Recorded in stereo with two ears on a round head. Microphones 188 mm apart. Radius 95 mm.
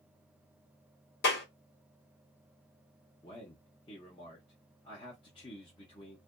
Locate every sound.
1.2 s a clap: 55° left (ahead or behind), 1.4 m
3.2 s a man speaking: 25° left (ahead or behind), 0.8 m